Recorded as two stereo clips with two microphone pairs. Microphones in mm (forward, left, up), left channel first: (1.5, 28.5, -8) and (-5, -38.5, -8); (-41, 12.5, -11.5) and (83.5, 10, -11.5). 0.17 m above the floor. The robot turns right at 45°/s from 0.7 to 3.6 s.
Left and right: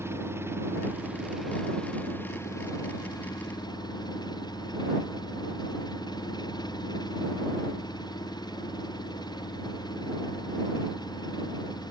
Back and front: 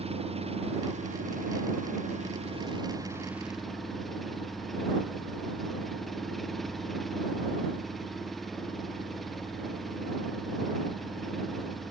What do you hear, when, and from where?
0.0 s an engine running: 40° right; by 11.9 s 90° left